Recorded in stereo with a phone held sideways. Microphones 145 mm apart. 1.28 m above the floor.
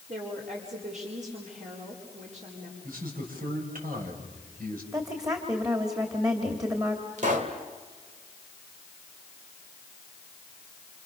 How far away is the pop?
About 2.5 m.